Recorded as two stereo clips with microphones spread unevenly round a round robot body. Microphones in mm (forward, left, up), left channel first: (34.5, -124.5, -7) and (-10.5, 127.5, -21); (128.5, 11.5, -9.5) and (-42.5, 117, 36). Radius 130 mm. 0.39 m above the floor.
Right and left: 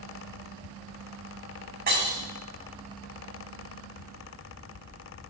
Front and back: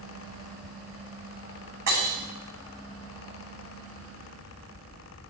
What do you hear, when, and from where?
1.9 s breaking glass: 160° left, 4 m